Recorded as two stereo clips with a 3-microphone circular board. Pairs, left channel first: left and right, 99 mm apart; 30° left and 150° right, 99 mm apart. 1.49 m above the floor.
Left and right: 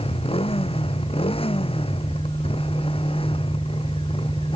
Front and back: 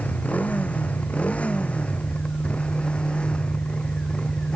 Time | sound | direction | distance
0.0 | a motorcycle | 105° left | ?